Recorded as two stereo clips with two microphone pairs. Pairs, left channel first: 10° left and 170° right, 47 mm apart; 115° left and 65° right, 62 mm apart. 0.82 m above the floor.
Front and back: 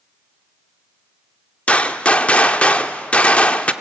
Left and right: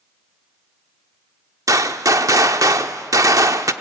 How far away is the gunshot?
About 0.6 m.